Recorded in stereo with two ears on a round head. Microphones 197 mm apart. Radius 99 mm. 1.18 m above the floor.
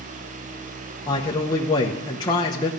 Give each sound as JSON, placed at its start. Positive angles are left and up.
{"t": 1.1, "sound": "a man speaking", "side_deg": 20, "distance_m": 0.9}